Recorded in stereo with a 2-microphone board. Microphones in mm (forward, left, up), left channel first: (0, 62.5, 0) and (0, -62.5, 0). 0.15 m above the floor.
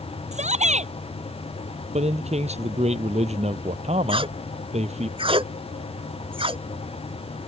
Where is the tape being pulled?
45° right (ahead or behind).